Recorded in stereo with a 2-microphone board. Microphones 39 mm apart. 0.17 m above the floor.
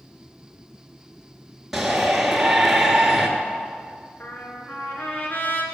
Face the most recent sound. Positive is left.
turn(degrees=55)  # may be behind; listen again after turning